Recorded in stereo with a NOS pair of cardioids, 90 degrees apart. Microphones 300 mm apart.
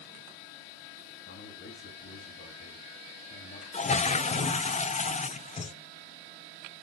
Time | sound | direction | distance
1.2 | a man speaking | 45° left | 9 m
3.7 | a toilet flushing | 25° left | 0.7 m